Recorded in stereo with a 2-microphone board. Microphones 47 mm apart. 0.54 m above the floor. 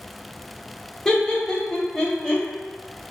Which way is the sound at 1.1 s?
15° left (ahead or behind).